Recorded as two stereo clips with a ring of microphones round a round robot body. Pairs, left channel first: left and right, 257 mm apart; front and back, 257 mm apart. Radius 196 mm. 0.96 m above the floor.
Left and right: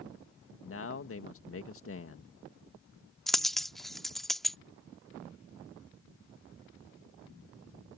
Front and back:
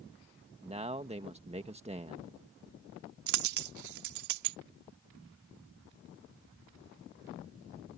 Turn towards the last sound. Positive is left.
turn(degrees=180)